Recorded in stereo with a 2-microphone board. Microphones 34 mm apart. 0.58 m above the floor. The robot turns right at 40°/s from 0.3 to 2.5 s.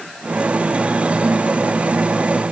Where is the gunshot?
No gunshot in this recording.